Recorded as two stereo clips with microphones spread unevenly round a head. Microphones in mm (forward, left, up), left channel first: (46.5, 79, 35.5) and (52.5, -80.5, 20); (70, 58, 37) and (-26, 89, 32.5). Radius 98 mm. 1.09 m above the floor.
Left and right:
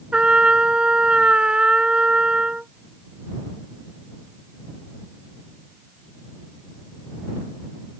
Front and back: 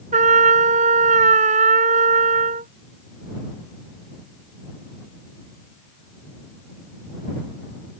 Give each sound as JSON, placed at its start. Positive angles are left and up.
{"t": 0.1, "sound": "a trumpet", "azimuth_deg": -175}